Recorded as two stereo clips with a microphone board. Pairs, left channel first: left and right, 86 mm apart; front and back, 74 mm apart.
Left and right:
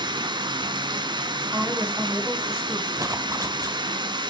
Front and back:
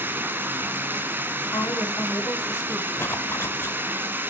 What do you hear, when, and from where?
0.0 s running water: 115° right, 1.0 m
1.5 s a woman speaking: 35° right, 3 m
3.0 s a zipper: 50° right, 1.0 m